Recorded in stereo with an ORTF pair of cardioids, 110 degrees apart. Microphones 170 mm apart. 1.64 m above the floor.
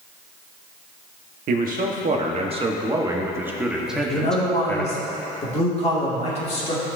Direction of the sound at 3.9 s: 35° left.